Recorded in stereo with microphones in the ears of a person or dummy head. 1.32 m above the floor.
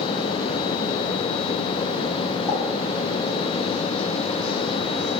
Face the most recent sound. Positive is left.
turn(degrees=10)  # may be behind; listen again after turning